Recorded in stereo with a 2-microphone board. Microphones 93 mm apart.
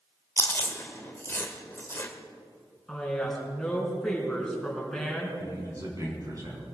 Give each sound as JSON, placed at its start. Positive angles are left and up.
{"t": 0.4, "sound": "chewing", "side_deg": 20, "distance_m": 1.5}
{"t": 2.9, "sound": "a woman speaking", "side_deg": 5, "distance_m": 4.0}
{"t": 5.4, "sound": "a man speaking", "side_deg": -40, "distance_m": 4.5}